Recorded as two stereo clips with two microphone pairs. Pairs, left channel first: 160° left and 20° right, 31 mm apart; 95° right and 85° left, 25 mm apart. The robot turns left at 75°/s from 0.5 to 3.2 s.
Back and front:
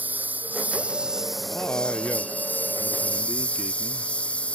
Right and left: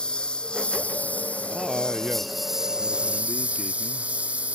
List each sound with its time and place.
0.0 s a lawn mower: 45° right; by 4.6 s 110° left
1.5 s a man speaking: straight behind; by 4.1 s 50° left